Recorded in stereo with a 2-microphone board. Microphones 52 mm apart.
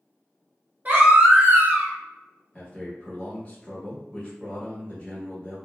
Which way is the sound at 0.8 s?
35° right (ahead or behind).